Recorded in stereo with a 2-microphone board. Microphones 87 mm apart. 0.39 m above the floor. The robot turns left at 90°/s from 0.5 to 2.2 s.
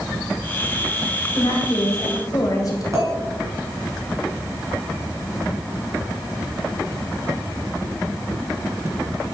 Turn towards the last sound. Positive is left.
turn(degrees=-40)  # may be behind; listen again after turning